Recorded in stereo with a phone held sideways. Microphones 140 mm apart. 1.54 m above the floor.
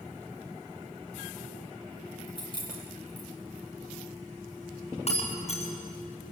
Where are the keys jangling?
35° left (ahead or behind), 6 m.